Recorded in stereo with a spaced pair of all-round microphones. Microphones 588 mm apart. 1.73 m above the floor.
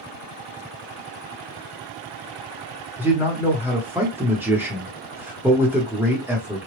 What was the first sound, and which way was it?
A man speaking, 5° right (ahead or behind).